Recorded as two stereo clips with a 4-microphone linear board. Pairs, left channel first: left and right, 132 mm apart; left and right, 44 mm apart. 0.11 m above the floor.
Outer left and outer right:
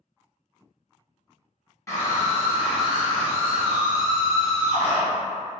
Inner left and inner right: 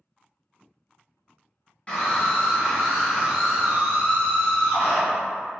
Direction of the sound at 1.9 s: 25° left (ahead or behind).